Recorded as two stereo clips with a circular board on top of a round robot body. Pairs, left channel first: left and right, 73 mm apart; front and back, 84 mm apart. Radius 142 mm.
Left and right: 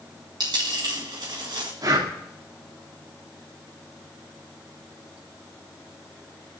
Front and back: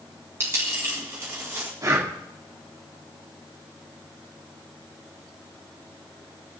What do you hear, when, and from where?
0.4 s a dropped coin: 120° right, 1.8 m
1.8 s breathing: 125° right, 2.0 m